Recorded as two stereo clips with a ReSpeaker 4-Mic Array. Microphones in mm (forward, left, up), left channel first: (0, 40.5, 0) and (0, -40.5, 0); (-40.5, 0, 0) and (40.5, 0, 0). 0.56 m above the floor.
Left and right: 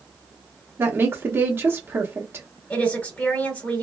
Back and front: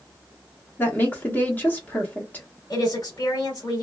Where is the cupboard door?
I don't hear a cupboard door.